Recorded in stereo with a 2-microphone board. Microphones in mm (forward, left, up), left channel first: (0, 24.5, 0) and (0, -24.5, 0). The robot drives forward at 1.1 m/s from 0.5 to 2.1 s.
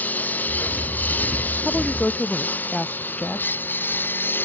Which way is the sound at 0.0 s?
35° left (ahead or behind).